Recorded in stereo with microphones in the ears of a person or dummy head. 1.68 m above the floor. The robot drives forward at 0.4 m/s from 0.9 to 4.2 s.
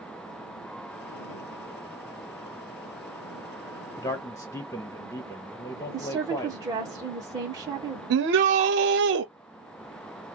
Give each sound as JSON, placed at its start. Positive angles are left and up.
{"t": 4.0, "sound": "a man speaking", "side_deg": 15, "distance_m": 0.9}
{"t": 5.9, "sound": "a woman speaking", "side_deg": -15, "distance_m": 1.4}
{"t": 8.1, "sound": "a shout", "side_deg": -60, "distance_m": 0.8}